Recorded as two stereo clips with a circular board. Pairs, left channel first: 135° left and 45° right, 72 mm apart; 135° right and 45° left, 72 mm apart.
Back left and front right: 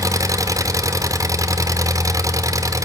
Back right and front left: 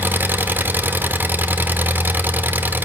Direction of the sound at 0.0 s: 15° right.